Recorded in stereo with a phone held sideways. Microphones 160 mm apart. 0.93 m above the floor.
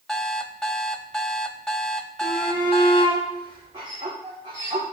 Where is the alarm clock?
5° left (ahead or behind), 0.8 m.